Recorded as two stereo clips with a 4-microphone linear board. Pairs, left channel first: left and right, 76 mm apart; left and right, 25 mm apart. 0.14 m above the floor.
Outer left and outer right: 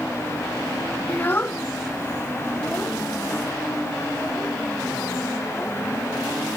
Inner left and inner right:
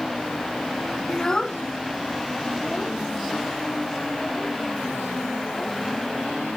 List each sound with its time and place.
1.1 s a child speaking: 25° left (ahead or behind); by 6.6 s 10° left (ahead or behind)